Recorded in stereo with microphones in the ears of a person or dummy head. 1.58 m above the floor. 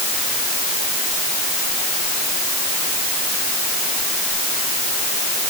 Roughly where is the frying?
I don't hear frying.